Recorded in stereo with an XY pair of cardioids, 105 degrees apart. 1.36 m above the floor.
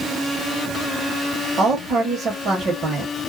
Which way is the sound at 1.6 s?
45° right.